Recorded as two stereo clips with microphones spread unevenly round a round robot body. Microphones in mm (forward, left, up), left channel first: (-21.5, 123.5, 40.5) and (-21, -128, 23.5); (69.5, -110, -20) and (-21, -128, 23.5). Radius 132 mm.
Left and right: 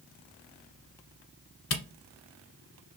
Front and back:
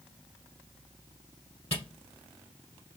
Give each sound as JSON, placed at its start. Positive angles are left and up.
{"t": 1.7, "sound": "a camera shutter", "azimuth_deg": 90, "distance_m": 1.0}